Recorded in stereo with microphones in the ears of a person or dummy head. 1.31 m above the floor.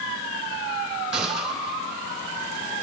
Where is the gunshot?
Centre (ahead or behind), 3 m.